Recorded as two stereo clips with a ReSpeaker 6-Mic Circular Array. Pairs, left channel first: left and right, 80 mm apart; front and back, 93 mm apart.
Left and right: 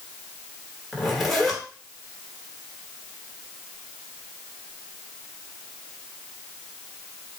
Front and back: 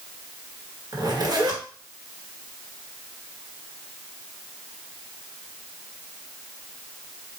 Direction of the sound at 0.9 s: Straight behind.